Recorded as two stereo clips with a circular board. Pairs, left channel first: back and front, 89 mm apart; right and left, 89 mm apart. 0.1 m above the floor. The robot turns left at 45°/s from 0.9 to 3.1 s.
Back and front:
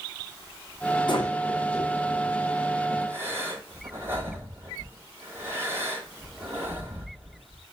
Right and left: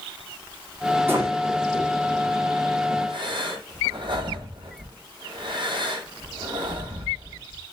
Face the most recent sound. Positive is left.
turn(degrees=65)